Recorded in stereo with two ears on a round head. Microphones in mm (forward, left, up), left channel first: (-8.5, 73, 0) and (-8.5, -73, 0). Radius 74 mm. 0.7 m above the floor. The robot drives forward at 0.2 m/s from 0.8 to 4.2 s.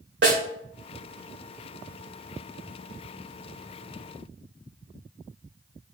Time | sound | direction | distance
0.2 | a snare drum | 75° right (ahead or behind) | 2.5 m